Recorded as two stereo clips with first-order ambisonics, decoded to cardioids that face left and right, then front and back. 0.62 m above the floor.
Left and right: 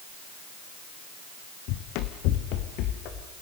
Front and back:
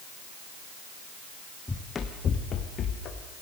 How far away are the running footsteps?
About 1.7 m.